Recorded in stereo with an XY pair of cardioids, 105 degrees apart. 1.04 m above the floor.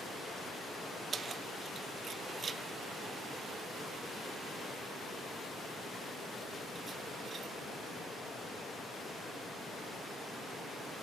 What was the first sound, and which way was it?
Keys jangling, 40° right.